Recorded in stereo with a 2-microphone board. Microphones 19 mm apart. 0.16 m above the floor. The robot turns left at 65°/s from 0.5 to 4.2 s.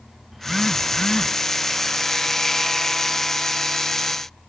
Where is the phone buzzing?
170° right; by 1.4 s 135° left.